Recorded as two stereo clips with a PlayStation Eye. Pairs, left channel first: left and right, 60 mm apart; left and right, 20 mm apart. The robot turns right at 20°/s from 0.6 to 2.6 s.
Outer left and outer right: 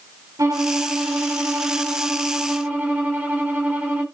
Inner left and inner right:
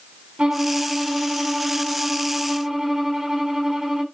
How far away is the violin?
About 3.5 m.